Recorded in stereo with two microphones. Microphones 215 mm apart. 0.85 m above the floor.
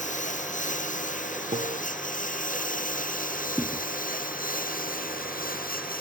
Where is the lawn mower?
35° left (ahead or behind); by 6.0 s 40° left (ahead or behind).